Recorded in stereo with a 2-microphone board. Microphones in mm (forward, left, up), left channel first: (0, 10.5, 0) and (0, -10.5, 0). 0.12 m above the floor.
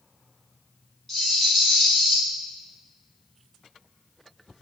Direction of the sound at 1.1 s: 5° left (ahead or behind).